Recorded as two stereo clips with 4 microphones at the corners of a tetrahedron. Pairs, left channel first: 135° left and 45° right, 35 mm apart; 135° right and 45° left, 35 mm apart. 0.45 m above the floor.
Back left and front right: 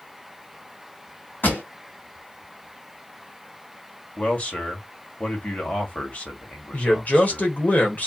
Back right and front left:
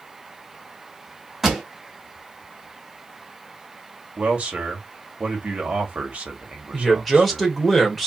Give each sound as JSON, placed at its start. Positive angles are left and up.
{"t": 1.4, "sound": "a pop", "azimuth_deg": 125, "distance_m": 1.9}
{"t": 4.2, "sound": "a man speaking", "azimuth_deg": 95, "distance_m": 2.0}
{"t": 6.7, "sound": "a man speaking", "azimuth_deg": 130, "distance_m": 1.8}